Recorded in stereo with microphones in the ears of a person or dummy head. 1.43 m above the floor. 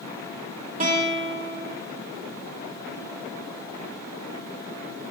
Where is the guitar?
40° right (ahead or behind), 1.3 m.